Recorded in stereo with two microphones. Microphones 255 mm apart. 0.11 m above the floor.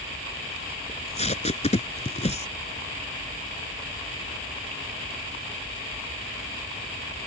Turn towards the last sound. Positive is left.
turn(degrees=25)  # may be behind; listen again after turning